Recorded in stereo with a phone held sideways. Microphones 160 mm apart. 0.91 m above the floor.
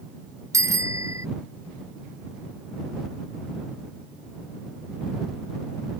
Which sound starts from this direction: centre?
A bicycle bell, at 0.5 s.